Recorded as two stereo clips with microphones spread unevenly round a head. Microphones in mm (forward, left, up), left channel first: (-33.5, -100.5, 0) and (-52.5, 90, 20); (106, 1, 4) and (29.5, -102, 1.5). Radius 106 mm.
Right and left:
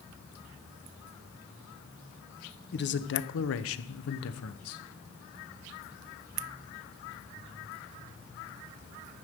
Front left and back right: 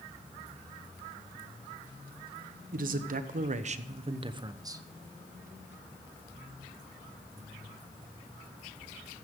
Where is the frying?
I don't hear frying.